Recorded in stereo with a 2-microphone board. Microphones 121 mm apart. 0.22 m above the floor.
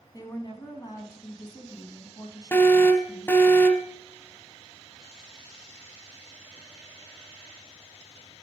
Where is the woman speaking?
35° left (ahead or behind), 1.7 m.